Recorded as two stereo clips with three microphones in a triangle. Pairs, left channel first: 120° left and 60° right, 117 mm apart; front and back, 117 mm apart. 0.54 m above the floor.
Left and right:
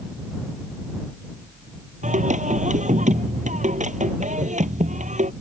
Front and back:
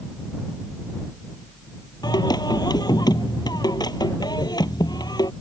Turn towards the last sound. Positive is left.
turn(degrees=-55)